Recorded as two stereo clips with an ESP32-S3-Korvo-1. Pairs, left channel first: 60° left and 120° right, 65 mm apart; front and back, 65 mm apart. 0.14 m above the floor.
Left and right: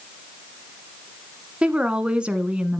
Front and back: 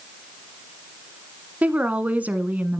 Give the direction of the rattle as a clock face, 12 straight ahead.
I don't hear a rattle.